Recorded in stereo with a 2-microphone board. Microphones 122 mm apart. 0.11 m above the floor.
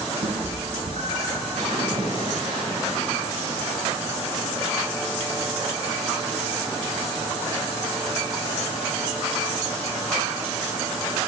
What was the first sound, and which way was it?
A cat meowing, 70° right (ahead or behind).